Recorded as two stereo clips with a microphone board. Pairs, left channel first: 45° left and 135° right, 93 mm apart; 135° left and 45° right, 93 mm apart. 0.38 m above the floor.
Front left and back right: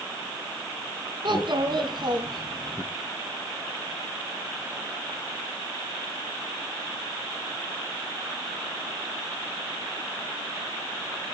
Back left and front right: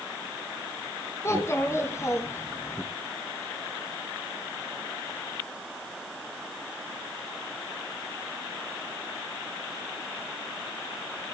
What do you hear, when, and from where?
1.2 s a child speaking: 165° right, 3.5 m